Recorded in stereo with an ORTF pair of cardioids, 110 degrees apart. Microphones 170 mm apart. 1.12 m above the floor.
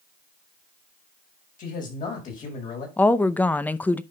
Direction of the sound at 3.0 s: 10° left.